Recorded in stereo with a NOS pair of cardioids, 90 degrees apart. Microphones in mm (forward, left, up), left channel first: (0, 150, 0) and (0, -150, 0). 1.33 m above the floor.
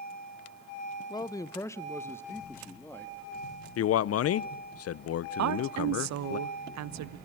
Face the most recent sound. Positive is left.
turn(degrees=-65)